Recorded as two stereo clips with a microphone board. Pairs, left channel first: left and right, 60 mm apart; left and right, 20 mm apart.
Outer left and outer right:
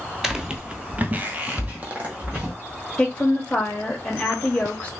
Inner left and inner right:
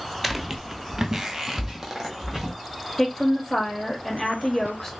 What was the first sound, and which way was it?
Footsteps, 5° right (ahead or behind).